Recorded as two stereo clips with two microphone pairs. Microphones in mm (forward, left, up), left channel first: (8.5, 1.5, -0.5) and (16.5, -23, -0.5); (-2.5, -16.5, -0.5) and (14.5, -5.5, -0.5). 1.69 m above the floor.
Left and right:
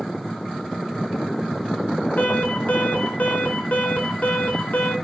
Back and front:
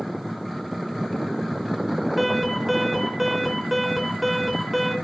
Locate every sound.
2.2 s an alarm: 115° left, 4 m